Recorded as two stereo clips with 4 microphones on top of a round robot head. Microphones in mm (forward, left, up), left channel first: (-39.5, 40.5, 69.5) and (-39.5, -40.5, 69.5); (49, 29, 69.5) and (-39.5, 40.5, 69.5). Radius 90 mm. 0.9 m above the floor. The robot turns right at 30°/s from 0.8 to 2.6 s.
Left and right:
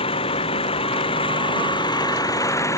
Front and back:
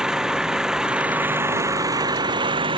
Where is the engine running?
90° left; by 2.8 s 145° left.